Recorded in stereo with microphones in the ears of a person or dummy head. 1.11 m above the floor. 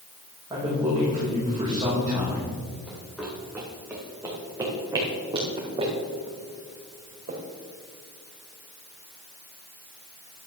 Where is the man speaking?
15° right (ahead or behind), 5.5 m.